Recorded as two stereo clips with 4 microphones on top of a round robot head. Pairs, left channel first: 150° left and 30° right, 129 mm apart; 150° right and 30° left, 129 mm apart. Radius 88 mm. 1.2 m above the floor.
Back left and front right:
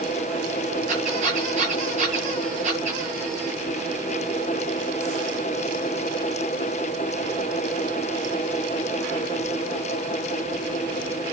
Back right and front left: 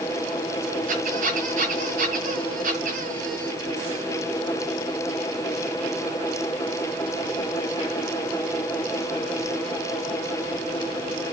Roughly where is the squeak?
Ahead.